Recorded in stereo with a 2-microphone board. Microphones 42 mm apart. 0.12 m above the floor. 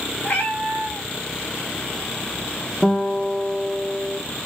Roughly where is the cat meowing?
Left.